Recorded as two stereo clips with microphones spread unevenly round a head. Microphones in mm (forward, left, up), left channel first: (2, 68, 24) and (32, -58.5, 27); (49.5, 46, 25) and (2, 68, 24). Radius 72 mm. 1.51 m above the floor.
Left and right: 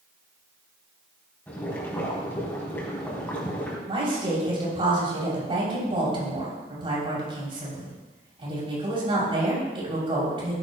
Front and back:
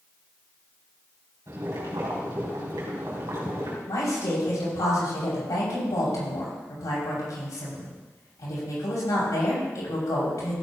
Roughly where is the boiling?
Behind.